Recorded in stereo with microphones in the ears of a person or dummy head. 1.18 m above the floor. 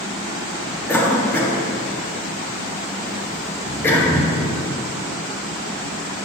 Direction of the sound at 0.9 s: 10° left (ahead or behind).